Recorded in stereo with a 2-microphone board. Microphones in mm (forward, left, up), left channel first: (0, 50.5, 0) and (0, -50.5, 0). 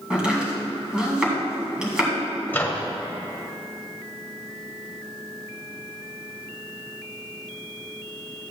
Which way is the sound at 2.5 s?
20° left (ahead or behind).